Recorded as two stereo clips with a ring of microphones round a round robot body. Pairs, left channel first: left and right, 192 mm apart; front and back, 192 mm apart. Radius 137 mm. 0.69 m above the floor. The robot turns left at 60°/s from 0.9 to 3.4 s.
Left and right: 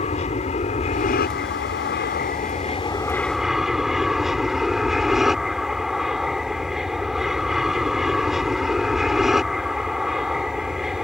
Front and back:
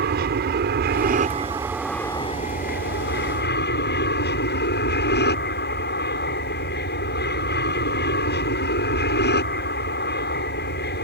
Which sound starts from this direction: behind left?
An aircraft, at 0.0 s.